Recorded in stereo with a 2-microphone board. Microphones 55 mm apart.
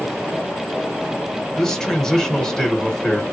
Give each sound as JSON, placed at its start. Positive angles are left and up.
{"t": 1.6, "sound": "a man speaking", "side_deg": 10, "distance_m": 1.3}